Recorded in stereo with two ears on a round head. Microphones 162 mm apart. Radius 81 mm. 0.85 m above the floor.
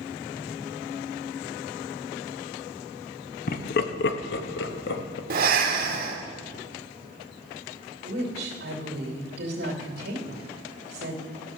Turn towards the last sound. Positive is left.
turn(degrees=-60)  # may be behind; listen again after turning